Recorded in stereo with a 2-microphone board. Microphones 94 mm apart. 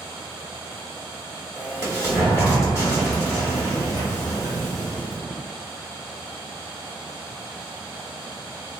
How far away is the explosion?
About 1.3 m.